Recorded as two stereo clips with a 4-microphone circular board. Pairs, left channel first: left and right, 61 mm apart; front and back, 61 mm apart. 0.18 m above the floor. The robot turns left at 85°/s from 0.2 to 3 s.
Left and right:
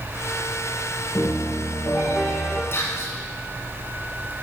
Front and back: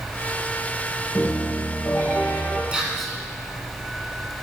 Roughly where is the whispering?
Behind left.